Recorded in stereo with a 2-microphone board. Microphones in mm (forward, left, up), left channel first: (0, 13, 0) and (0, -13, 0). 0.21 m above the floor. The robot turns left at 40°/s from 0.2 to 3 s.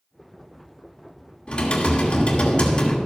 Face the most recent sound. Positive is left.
turn(degrees=50)